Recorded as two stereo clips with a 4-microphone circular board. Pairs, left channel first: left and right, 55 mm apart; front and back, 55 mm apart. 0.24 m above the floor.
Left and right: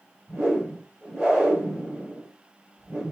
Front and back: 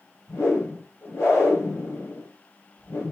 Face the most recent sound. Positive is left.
turn(degrees=-20)